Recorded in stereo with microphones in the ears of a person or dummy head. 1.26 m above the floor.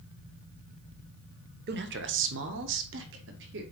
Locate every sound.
1.7 s a man speaking: 55° right (ahead or behind), 1.0 m; by 3.6 s 65° right (ahead or behind), 1.8 m